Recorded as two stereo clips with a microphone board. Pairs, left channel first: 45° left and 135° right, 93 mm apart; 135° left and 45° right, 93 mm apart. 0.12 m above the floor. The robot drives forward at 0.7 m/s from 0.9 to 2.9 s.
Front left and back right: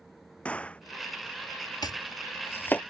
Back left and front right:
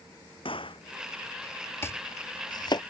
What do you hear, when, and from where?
0.5 s a gunshot: 120° left
1.8 s chopping: 75° left; by 2.8 s 115° left